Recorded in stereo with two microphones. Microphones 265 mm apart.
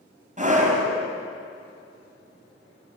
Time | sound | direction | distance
0.4 | a scream | 30° right (ahead or behind) | 5 m